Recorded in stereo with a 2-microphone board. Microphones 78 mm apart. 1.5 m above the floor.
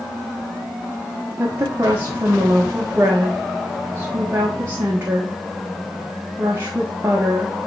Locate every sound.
1.4 s a woman speaking: 30° right (ahead or behind), 1.3 m